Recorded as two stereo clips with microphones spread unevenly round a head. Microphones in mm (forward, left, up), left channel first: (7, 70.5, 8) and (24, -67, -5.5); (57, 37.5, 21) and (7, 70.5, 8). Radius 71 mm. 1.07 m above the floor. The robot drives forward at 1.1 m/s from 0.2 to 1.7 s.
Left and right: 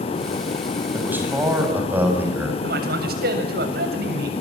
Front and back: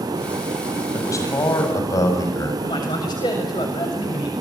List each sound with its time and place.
0.9 s a man speaking: 5° right, 8.5 m
2.6 s a man speaking: 70° right, 7 m